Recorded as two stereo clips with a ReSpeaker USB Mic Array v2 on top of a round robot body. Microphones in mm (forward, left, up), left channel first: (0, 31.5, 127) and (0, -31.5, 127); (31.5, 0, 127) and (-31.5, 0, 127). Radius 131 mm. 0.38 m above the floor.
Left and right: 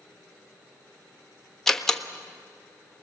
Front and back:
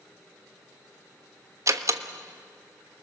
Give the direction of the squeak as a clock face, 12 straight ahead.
No squeak in this recording.